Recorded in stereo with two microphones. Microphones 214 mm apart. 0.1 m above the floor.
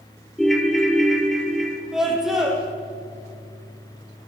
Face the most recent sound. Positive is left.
turn(degrees=0)  # may be behind; listen again after turning